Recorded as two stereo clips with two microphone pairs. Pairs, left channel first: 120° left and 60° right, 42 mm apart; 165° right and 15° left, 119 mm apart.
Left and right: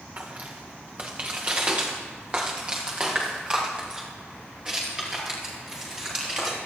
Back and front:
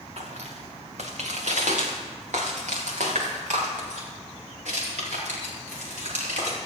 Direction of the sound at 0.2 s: 10° right.